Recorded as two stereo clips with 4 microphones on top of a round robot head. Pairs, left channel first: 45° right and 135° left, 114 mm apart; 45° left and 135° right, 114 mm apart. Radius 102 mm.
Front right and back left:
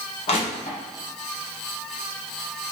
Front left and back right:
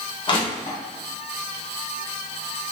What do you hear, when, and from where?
0.3 s crushing: 5° right, 1.2 m